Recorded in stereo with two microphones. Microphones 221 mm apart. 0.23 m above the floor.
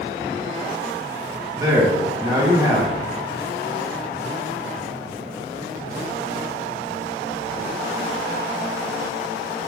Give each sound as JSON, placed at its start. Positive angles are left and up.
{"t": 1.5, "sound": "a man speaking", "side_deg": -15, "distance_m": 1.6}